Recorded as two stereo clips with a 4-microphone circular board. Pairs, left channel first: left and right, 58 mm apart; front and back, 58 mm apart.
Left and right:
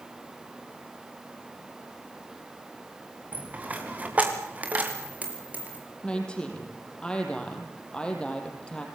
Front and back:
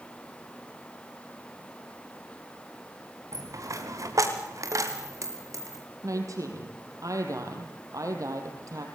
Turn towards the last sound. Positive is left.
turn(degrees=160)